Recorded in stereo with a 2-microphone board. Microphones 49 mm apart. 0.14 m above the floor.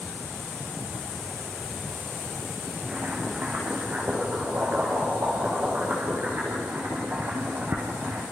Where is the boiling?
40° right (ahead or behind), 8 m.